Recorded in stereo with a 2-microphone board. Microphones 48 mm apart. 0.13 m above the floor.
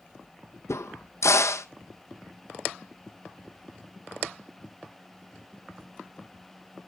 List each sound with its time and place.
0.7 s a crack: 80° left, 0.9 m